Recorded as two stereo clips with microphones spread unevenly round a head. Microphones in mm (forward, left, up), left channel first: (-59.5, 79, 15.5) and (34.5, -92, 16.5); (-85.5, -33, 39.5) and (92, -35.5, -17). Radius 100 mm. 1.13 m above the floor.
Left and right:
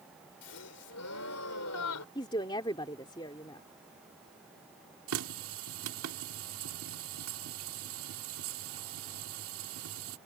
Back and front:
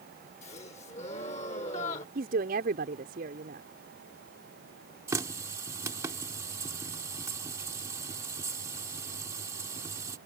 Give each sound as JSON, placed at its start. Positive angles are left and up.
{"t": 0.4, "sound": "a gasp", "azimuth_deg": 120}
{"t": 2.1, "sound": "a woman speaking", "azimuth_deg": 50}
{"t": 5.1, "sound": "a running tap", "azimuth_deg": -75}